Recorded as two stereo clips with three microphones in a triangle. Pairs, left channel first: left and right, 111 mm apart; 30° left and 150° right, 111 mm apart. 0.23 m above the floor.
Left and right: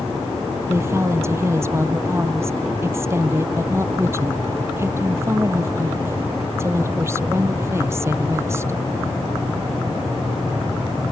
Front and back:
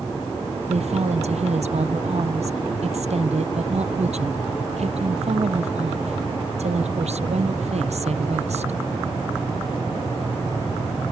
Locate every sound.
0.7 s a woman speaking: 155° right